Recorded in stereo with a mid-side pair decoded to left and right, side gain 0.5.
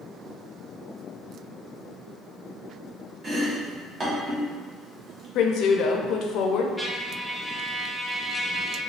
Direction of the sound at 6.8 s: Straight ahead.